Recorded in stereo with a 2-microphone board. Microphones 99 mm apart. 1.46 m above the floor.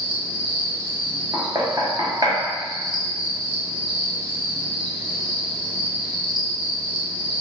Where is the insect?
45° right (ahead or behind), 1.1 m.